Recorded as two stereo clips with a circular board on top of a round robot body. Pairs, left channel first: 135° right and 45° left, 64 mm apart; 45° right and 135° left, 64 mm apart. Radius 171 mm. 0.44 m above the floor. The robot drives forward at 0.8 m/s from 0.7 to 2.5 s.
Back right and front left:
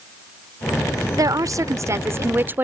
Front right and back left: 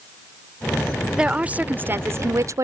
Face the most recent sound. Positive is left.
turn(degrees=100)